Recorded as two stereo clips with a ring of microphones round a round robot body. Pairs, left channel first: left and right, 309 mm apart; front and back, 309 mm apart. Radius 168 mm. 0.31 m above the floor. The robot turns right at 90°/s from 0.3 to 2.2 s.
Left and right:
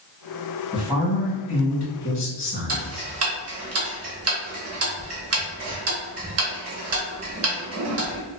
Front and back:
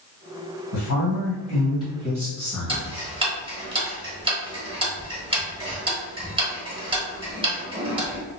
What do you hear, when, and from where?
0.7 s a woman speaking: 30° right, 1.5 m; by 3.1 s 105° left, 1.5 m
2.7 s ticking: 110° right, 1.0 m